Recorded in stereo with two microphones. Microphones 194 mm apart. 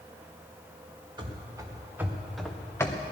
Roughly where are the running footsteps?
Right.